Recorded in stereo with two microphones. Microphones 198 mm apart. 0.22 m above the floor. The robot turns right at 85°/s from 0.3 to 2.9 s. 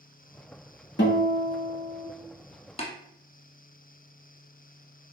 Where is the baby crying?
I don't hear a baby crying.